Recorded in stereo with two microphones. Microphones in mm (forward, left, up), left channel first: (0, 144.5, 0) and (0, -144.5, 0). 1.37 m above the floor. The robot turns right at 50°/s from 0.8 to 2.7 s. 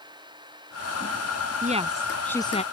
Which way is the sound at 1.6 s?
30° right.